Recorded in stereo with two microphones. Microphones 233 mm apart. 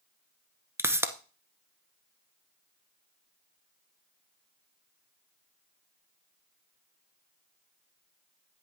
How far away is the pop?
About 0.9 m.